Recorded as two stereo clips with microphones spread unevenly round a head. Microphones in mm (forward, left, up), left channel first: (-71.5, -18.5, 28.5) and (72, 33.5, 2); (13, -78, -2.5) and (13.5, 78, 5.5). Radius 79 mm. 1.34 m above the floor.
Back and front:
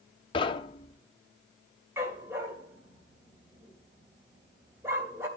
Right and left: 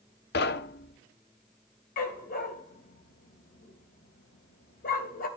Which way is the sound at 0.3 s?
110° right.